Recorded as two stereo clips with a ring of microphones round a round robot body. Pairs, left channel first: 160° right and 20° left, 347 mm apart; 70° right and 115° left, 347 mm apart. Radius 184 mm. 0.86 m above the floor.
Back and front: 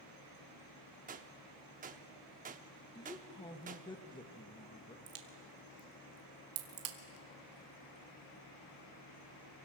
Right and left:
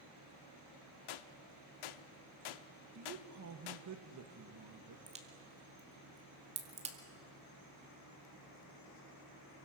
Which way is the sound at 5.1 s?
40° left.